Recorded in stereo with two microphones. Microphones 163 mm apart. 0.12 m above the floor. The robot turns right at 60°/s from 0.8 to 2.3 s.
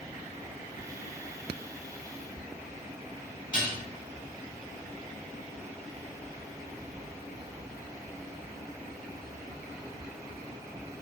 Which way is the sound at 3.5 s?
5° left (ahead or behind).